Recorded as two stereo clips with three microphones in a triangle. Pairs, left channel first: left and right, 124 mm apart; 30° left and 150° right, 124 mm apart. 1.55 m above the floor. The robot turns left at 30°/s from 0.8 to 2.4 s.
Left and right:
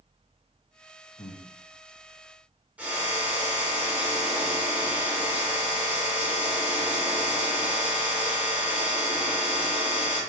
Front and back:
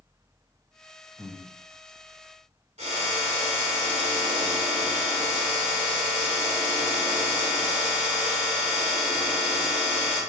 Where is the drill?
170° right, 2.5 m.